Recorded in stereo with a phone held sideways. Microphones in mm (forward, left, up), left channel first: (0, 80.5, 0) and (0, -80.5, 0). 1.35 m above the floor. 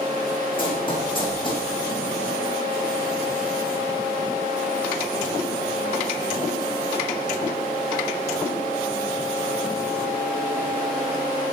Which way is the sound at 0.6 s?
35° left (ahead or behind).